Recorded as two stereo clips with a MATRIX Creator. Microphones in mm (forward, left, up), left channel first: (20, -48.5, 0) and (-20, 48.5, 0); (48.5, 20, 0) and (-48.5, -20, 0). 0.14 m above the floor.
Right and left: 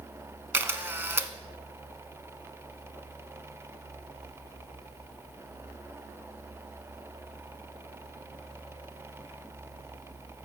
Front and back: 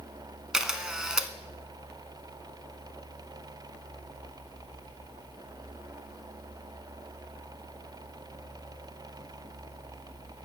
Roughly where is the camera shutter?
Behind left.